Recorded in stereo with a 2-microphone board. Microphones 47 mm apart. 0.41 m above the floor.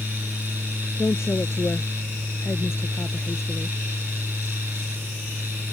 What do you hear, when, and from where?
1.0 s a woman speaking: 70° left (ahead or behind)